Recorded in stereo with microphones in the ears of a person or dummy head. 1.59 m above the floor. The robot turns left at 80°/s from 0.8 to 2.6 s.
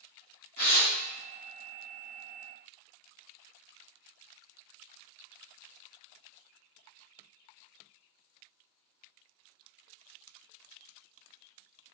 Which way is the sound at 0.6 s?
45° left (ahead or behind).